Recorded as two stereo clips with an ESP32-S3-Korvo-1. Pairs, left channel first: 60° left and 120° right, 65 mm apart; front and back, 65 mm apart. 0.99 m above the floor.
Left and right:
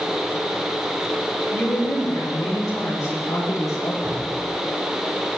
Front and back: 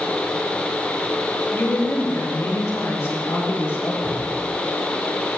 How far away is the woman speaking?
About 4 m.